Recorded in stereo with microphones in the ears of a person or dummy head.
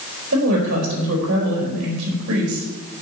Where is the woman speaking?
85° right, 4.5 m.